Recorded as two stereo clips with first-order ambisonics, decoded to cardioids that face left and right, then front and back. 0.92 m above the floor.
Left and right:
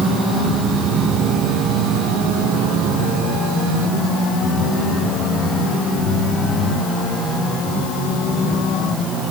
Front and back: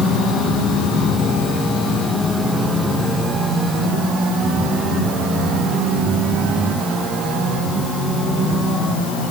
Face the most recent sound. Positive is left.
No sound to turn to.